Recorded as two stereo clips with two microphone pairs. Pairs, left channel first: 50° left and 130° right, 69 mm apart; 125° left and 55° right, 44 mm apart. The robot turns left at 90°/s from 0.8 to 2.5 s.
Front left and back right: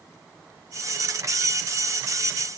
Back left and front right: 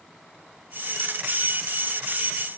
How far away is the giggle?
I don't hear a giggle.